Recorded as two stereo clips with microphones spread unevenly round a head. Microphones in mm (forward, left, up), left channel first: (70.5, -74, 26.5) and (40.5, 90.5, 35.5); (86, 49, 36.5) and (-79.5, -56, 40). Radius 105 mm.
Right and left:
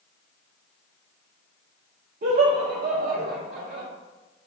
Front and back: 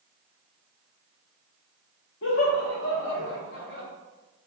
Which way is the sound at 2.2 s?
60° left.